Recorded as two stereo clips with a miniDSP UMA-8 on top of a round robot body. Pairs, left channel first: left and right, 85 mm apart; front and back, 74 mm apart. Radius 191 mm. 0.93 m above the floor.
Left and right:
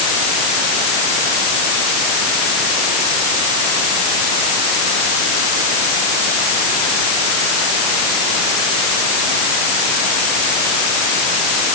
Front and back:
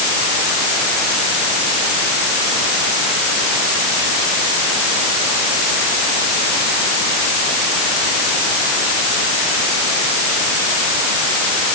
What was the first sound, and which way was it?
Only background noise.